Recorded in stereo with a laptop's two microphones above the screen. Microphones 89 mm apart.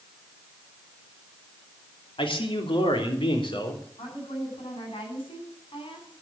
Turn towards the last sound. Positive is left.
turn(degrees=85)